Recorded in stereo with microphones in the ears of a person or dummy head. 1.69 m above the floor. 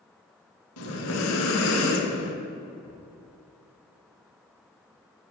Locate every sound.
0.8 s breathing: 85° left, 1.0 m
2.8 s a thud: 5° left (ahead or behind), 1.5 m